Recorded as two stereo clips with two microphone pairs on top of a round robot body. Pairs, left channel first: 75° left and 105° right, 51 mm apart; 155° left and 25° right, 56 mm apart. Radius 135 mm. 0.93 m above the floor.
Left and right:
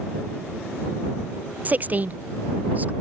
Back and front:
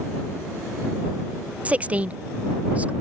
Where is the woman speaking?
85° right.